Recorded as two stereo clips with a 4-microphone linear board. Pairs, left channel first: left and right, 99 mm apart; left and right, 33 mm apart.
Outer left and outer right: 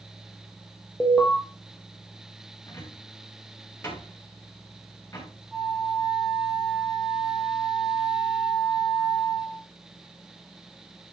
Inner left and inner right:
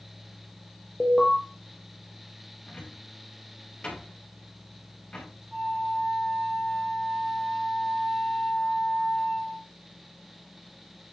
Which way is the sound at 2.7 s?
25° left (ahead or behind).